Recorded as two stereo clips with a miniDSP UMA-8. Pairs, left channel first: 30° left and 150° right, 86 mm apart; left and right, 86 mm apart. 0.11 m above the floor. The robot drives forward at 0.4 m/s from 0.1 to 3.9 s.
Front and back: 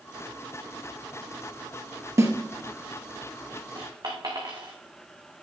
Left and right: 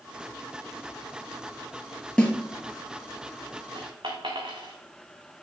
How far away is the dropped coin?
About 2.5 m.